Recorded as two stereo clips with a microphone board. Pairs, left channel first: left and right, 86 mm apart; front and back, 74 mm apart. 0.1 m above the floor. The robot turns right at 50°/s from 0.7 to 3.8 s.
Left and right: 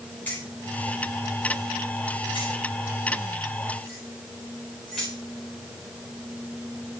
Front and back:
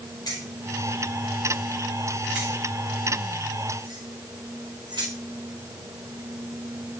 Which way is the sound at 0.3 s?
20° left.